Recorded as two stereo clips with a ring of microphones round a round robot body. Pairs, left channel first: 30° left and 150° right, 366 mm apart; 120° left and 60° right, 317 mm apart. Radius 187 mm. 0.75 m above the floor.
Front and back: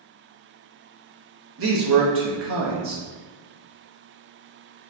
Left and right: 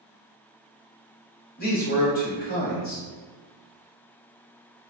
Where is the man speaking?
170° left, 0.8 m.